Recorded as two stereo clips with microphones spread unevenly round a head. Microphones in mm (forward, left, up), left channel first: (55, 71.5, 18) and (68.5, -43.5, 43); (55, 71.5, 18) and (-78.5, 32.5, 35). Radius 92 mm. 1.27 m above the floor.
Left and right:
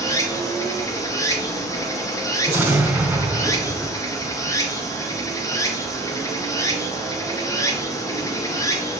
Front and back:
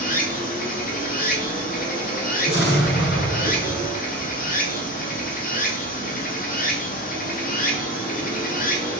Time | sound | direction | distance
0.0 | running water | 35° left | 2.5 m
2.5 | an explosion | 15° right | 3 m